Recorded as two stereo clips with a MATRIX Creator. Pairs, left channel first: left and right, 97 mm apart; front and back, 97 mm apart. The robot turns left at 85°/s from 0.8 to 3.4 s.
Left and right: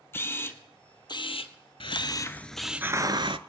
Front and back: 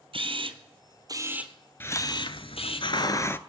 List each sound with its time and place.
0.1 s a camera shutter: 155° left, 1.0 m; by 2.8 s 15° right, 1.0 m
1.8 s a hiss: 65° left, 0.6 m; by 3.4 s 70° right, 0.6 m